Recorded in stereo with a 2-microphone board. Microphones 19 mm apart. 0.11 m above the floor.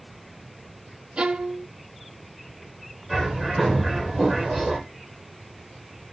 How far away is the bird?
About 4.5 m.